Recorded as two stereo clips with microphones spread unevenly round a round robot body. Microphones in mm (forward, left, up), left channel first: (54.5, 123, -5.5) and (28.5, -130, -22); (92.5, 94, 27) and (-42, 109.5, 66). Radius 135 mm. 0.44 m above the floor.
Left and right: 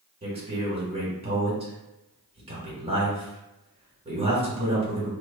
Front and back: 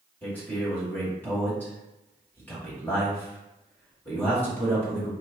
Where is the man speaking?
50° right, 1.5 m.